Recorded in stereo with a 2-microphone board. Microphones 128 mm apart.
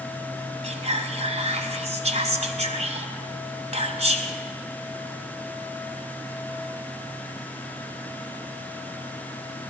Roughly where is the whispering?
Right.